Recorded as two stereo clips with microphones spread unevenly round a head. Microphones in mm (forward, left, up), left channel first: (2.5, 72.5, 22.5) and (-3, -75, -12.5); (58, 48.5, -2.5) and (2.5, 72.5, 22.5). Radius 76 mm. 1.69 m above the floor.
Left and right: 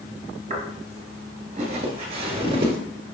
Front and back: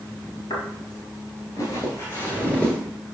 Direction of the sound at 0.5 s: 50° right.